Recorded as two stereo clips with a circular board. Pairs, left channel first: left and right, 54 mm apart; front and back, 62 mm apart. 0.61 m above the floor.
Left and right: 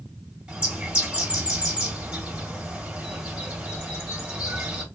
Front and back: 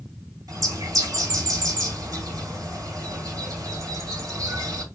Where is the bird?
160° right, 2.5 m.